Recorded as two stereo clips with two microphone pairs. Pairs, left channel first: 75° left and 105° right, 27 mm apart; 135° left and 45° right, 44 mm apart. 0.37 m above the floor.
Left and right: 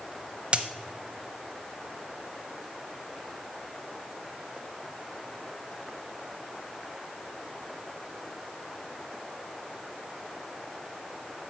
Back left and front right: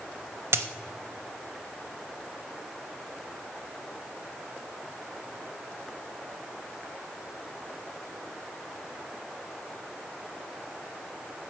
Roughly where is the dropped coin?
Ahead right.